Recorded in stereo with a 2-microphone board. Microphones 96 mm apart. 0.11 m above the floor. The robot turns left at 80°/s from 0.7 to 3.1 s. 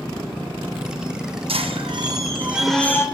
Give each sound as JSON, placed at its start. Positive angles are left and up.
{"t": 1.5, "sound": "a squeak", "azimuth_deg": -85, "distance_m": 0.7}